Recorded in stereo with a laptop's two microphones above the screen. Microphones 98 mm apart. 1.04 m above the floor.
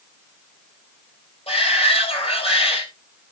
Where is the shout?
85° left, 4.5 m.